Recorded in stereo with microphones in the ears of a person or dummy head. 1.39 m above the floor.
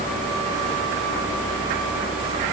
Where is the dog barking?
No dog barking in this recording.